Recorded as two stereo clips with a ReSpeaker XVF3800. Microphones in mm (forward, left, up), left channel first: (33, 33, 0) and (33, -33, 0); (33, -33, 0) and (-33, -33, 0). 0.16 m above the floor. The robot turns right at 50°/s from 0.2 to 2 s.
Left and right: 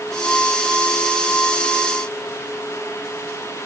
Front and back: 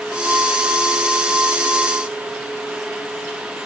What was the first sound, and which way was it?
Only background noise.